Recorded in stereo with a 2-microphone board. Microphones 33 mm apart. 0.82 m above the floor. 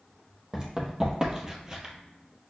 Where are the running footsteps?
20° right (ahead or behind), 1.2 m.